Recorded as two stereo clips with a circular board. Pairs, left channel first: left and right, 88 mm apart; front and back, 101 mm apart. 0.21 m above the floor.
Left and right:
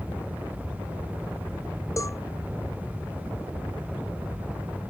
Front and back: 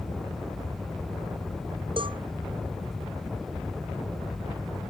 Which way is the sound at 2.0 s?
145° left.